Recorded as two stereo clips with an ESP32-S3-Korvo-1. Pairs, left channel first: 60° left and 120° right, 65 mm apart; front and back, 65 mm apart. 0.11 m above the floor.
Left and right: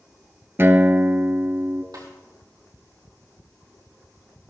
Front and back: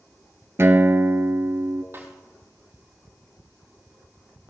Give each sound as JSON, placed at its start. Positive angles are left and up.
{"t": 0.6, "sound": "a guitar", "azimuth_deg": -155, "distance_m": 0.8}
{"t": 1.9, "sound": "a snare drum", "azimuth_deg": -130, "distance_m": 2.5}